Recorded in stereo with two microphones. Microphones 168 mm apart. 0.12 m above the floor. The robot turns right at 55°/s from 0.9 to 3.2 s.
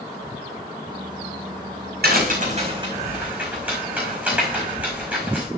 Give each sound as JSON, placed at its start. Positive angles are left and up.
{"t": 2.0, "sound": "a crack", "side_deg": -70, "distance_m": 5.0}